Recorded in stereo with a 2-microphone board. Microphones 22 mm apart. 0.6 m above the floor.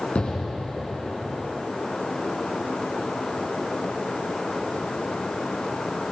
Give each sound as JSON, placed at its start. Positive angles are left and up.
{"t": 0.1, "sound": "an explosion", "side_deg": 75, "distance_m": 4.5}